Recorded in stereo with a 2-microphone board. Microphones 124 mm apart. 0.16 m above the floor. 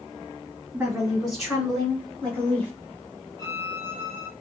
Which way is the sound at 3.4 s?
30° left (ahead or behind).